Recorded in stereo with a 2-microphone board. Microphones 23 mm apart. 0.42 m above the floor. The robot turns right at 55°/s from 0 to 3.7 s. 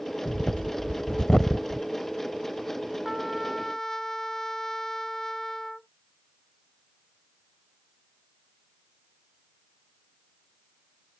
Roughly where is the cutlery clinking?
I don't hear cutlery clinking.